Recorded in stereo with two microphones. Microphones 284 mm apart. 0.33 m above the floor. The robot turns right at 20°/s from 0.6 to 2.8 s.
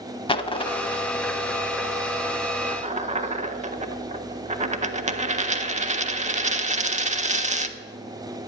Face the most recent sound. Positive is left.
turn(degrees=-25)  # may be behind; listen again after turning